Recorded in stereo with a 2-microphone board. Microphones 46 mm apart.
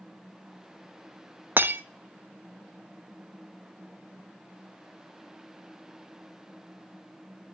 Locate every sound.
1.6 s breaking glass: 45° right (ahead or behind), 0.9 m